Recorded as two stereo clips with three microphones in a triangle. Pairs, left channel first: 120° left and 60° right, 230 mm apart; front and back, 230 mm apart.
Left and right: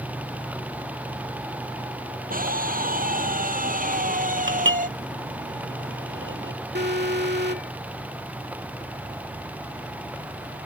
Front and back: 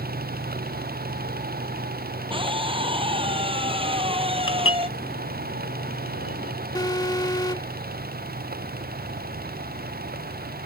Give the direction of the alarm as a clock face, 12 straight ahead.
2 o'clock.